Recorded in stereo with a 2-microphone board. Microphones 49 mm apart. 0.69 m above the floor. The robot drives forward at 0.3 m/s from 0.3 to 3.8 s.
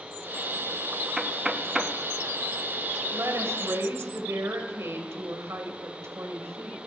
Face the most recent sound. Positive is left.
turn(degrees=-70)  # may be behind; listen again after turning